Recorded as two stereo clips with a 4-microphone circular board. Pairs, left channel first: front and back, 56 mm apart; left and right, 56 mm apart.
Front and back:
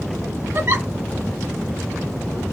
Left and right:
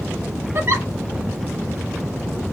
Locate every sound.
0.6 s a giggle: 135° right, 1.6 m